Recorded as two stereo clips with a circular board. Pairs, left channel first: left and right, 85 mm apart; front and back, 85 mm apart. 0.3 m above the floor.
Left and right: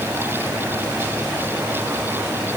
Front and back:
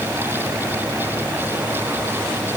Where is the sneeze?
I don't hear a sneeze.